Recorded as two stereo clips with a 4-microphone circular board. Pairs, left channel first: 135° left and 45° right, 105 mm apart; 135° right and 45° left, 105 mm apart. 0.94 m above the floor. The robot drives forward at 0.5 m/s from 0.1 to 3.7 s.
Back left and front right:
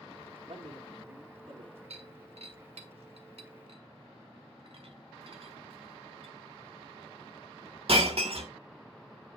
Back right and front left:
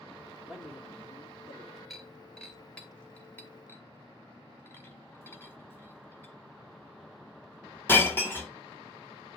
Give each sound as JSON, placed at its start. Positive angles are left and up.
{"t": 0.4, "sound": "a man speaking", "azimuth_deg": -40, "distance_m": 3.0}
{"t": 1.9, "sound": "breaking glass", "azimuth_deg": -45, "distance_m": 2.0}